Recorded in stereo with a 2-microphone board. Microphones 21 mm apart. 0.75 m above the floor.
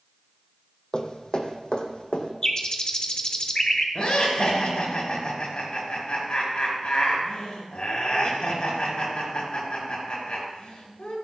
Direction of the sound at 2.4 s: 45° left (ahead or behind).